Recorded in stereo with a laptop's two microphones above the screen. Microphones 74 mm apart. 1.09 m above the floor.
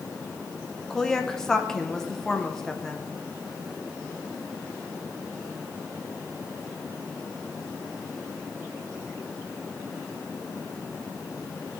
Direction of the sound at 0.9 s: 5° left (ahead or behind).